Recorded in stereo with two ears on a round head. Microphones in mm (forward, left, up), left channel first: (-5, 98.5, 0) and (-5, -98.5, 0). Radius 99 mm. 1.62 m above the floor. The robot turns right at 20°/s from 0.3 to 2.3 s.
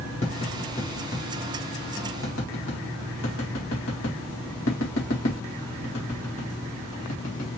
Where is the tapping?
30° left (ahead or behind), 1.8 m; by 7.5 s 70° left (ahead or behind), 1.8 m.